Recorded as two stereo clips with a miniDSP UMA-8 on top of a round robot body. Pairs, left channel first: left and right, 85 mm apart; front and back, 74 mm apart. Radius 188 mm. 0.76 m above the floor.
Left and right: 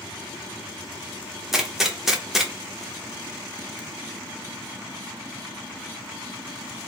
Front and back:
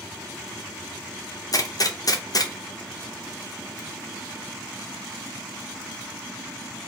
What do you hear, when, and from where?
1.5 s a gunshot: 5° right, 0.9 m